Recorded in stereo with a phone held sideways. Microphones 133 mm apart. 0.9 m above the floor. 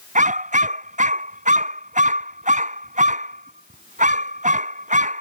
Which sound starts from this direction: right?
A dog barking, at 0.1 s.